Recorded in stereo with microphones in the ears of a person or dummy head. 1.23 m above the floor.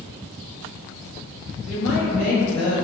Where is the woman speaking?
45° left (ahead or behind), 1.0 m.